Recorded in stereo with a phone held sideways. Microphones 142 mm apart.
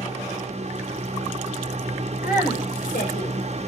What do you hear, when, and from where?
0.0 s a fan: 50° right (ahead or behind), 1.1 m
2.2 s a woman speaking: 75° left (ahead or behind), 4 m